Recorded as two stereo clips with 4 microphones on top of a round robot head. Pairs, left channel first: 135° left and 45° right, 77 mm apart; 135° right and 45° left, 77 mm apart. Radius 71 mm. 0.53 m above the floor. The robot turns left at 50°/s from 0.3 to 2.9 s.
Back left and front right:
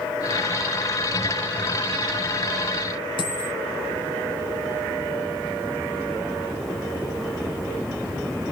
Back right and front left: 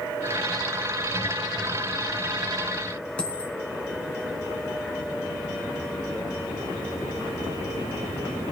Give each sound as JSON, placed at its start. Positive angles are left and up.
{"t": 3.2, "sound": "a dropped coin", "azimuth_deg": 150, "distance_m": 3.0}